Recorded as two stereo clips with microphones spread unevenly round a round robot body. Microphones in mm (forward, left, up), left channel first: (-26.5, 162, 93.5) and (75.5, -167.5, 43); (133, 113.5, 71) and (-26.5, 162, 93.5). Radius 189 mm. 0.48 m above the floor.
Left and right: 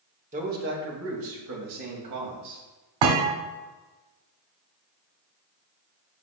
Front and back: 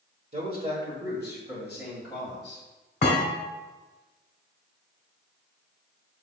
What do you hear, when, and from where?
0.3 s a man speaking: 140° right, 1.7 m; by 2.6 s 105° right, 3.5 m
3.0 s a thud: 75° right, 1.6 m